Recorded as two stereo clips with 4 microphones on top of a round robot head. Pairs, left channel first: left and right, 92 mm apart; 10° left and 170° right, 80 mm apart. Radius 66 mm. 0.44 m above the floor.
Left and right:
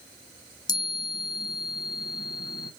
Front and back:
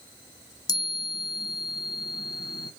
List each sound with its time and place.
0.7 s a chime: 45° left, 0.8 m